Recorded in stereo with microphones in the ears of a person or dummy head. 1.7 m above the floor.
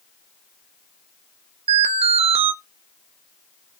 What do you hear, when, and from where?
1.7 s an alarm: 35° right (ahead or behind), 1.1 m